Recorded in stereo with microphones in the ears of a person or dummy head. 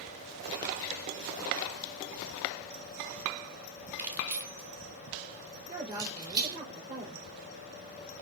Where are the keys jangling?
10° right (ahead or behind), 2.5 m; by 6.6 s 20° right (ahead or behind), 4.5 m.